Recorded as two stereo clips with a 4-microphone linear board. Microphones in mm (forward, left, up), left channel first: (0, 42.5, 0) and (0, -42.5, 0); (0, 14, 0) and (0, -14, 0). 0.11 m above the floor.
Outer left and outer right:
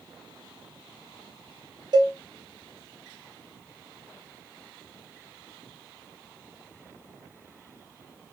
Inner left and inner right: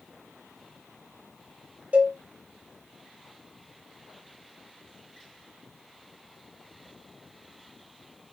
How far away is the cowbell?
About 1.0 m.